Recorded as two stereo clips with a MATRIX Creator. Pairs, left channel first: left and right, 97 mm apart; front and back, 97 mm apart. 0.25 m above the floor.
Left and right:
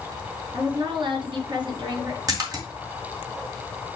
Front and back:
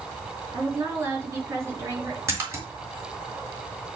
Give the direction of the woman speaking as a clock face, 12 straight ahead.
4 o'clock.